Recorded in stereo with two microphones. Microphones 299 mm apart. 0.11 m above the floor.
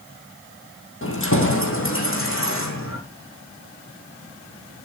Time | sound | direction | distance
1.0 | keys jangling | 45° left (ahead or behind) | 3 m